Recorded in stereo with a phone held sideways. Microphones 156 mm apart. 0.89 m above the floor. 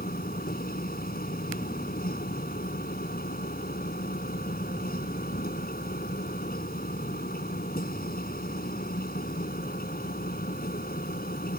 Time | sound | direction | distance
0.0 | a machine running | 75° left (ahead or behind) | ?